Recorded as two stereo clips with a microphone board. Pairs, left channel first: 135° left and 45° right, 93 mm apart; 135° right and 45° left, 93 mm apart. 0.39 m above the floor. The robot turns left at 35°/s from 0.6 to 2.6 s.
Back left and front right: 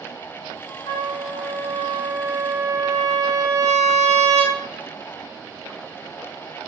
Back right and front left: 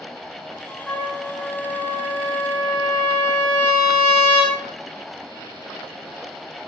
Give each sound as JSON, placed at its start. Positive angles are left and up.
{"t": 0.9, "sound": "a trumpet", "azimuth_deg": 140, "distance_m": 0.8}